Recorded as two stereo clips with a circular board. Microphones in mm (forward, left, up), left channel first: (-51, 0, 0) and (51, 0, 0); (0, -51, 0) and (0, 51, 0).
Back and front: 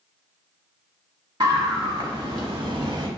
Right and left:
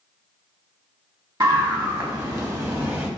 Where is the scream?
50° left, 1.7 m; by 3.1 s 25° left, 1.0 m.